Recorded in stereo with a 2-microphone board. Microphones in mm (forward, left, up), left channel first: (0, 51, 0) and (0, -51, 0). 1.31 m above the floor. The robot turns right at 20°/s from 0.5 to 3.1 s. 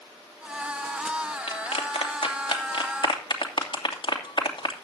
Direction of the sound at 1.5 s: 85° left.